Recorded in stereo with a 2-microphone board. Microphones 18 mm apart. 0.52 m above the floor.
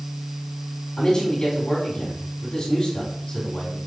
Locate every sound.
1.0 s a man speaking: 45° left (ahead or behind), 3.5 m